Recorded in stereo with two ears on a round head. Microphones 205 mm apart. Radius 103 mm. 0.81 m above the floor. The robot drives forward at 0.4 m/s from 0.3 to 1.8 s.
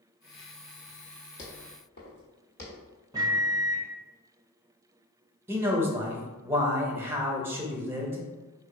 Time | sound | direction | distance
1.4 | footsteps | 55° left (ahead or behind) | 1.6 m
3.1 | a microwave | 15° right (ahead or behind) | 0.8 m
5.5 | a man speaking | 10° right (ahead or behind) | 0.7 m